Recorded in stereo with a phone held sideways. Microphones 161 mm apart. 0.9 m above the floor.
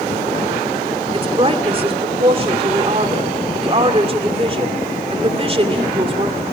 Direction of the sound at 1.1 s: 35° right (ahead or behind).